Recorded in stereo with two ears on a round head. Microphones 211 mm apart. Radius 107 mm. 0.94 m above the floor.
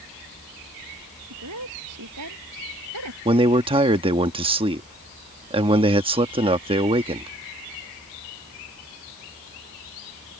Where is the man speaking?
25° right (ahead or behind).